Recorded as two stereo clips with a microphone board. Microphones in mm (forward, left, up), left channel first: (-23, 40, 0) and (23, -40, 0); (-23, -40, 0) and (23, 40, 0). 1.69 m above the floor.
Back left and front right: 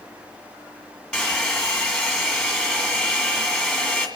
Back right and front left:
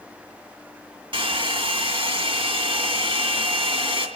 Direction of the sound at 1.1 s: 40° left.